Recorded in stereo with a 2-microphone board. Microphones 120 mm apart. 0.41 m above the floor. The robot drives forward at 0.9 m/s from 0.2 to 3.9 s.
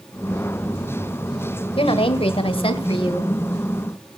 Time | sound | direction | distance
1.8 | a woman speaking | 50° left (ahead or behind) | 1.8 m